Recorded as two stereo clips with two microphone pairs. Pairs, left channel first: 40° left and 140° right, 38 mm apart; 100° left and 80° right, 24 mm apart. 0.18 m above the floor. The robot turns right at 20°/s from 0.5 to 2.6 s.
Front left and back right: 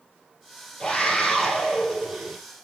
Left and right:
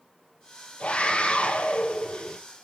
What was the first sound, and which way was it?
A scream, 115° left.